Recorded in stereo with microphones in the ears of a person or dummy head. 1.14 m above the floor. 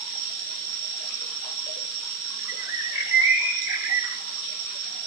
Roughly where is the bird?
Centre.